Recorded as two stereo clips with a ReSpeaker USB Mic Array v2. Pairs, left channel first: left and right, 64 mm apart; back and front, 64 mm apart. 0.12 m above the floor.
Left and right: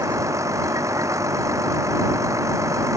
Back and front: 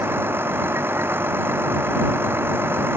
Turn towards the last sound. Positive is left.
turn(degrees=-55)